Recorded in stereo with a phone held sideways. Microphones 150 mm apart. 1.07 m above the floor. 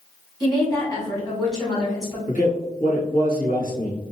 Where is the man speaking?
70° left (ahead or behind), 1.5 m.